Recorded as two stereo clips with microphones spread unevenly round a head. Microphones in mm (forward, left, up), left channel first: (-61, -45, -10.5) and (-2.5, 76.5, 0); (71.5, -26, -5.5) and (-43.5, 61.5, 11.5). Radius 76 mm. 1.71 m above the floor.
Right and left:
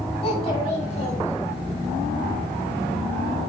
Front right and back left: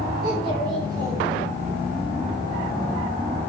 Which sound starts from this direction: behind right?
A child speaking, at 0.2 s.